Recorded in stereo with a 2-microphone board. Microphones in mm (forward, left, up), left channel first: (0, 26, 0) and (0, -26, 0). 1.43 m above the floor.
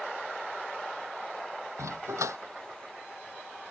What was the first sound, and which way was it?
A dog barking, 80° right.